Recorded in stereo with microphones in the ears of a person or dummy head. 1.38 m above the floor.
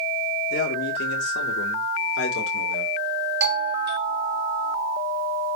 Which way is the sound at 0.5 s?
55° left (ahead or behind).